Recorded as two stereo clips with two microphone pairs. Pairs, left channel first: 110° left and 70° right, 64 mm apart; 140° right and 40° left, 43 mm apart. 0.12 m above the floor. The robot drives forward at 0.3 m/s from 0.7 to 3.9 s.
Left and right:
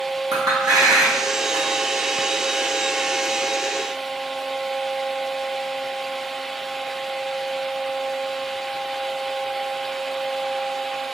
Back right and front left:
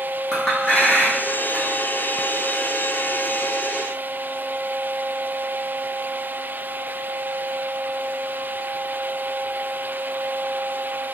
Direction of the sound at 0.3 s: 65° right.